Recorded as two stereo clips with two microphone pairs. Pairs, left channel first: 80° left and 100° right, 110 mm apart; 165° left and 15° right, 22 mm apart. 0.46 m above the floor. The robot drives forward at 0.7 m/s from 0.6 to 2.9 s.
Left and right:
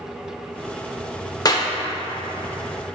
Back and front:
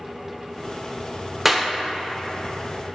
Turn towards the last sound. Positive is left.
turn(degrees=160)